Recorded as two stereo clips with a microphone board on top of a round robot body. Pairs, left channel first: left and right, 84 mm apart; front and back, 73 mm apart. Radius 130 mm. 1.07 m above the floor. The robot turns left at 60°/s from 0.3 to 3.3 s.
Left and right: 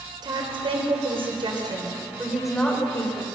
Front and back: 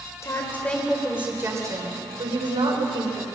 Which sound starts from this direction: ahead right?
A woman speaking, at 0.2 s.